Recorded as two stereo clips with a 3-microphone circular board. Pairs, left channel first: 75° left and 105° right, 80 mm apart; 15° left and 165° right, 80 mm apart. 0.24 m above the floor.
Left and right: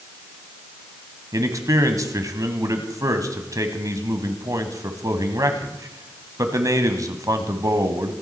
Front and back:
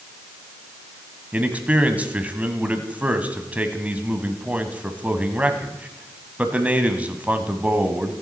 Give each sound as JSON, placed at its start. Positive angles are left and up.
{"t": 1.3, "sound": "a man speaking", "azimuth_deg": -100, "distance_m": 1.4}